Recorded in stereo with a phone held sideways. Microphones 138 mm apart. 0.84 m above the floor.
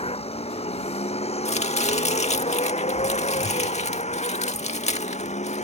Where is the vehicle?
45° left (ahead or behind); by 5.7 s 55° left (ahead or behind).